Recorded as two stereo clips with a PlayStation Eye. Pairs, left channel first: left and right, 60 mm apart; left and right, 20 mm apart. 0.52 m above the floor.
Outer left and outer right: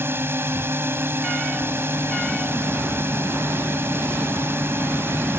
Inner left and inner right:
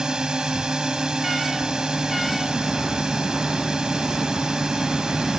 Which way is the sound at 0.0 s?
45° right (ahead or behind).